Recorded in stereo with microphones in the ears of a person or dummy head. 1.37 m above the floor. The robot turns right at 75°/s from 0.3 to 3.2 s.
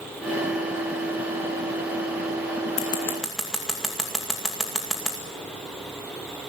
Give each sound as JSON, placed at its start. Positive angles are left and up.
{"t": 2.8, "sound": "scissors", "side_deg": 30, "distance_m": 2.0}